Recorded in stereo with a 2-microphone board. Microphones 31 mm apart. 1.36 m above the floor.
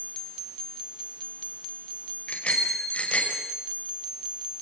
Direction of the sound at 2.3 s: 40° left (ahead or behind).